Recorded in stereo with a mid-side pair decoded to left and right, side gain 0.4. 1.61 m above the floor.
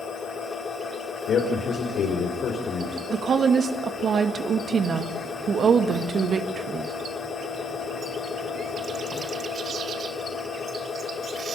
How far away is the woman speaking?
About 2.5 m.